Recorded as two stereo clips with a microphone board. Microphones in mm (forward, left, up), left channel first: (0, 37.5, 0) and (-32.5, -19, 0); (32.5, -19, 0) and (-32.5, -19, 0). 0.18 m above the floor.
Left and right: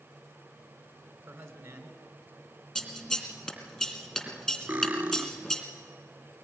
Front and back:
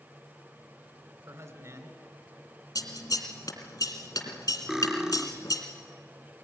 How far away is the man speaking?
About 2.5 m.